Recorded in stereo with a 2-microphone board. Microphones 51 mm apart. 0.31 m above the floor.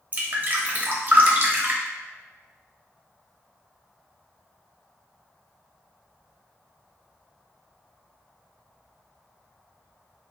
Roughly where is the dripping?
Right.